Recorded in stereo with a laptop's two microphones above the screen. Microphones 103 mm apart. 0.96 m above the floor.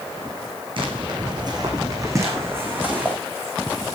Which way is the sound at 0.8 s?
55° right (ahead or behind).